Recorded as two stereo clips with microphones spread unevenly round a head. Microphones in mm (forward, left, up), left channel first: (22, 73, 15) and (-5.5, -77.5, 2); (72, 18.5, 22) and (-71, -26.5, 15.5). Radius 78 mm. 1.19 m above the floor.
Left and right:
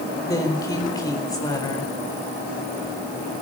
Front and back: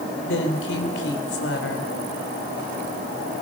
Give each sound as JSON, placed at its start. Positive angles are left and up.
{"t": 0.2, "sound": "a woman speaking", "azimuth_deg": 10, "distance_m": 4.5}